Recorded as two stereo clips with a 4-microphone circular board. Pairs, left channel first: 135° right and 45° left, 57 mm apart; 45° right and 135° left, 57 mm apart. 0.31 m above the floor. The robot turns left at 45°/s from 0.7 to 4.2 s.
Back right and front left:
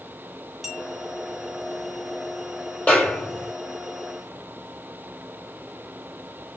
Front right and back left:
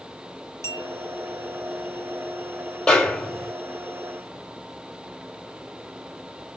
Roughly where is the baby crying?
No baby crying in this recording.